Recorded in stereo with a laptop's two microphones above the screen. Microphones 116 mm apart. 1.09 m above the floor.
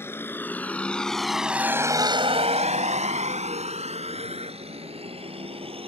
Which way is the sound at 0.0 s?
20° left (ahead or behind).